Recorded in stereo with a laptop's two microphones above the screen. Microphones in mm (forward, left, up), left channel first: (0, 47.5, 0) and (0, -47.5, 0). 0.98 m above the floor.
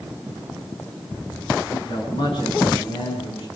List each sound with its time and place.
1.7 s a man speaking: 70° left (ahead or behind), 8 m; by 3.5 s 85° left, 8.5 m